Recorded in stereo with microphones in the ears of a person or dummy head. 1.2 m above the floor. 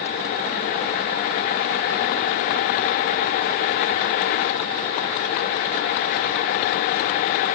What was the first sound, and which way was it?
Only background noise.